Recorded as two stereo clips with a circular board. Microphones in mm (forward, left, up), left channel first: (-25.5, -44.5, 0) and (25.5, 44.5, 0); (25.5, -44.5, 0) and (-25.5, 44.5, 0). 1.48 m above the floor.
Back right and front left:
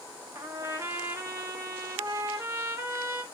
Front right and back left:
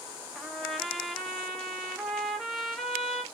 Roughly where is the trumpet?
Ahead left.